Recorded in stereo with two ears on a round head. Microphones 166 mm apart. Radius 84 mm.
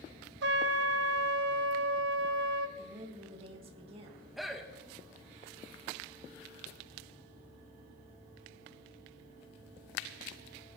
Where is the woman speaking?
30° right (ahead or behind), 2.0 m.